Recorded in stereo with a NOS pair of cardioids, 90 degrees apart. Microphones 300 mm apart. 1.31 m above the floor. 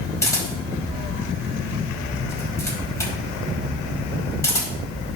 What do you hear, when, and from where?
0.2 s a camera shutter: 10° left, 4.5 m